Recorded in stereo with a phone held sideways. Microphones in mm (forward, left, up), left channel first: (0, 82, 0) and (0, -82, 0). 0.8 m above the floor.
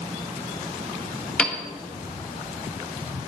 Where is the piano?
5° left (ahead or behind), 1.3 m.